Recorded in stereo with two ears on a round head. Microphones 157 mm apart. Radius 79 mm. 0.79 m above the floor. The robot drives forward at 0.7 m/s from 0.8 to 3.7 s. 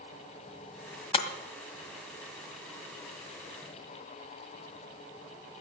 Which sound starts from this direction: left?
Breaking glass, at 1.1 s.